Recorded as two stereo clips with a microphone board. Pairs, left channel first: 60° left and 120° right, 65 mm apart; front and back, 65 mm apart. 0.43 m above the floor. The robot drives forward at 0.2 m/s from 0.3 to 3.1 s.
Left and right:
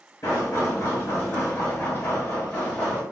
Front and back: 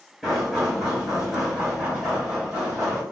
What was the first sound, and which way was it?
Knocking, 95° left.